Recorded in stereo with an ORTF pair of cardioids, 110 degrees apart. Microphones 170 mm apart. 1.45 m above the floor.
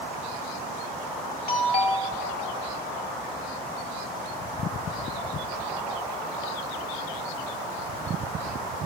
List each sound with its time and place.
1.5 s a doorbell: 65° left, 1.9 m